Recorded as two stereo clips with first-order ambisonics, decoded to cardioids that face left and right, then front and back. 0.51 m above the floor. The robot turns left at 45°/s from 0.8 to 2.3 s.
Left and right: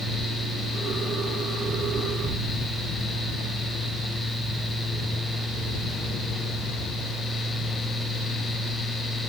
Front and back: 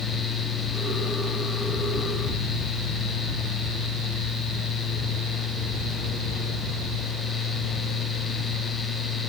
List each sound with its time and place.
Only background noise.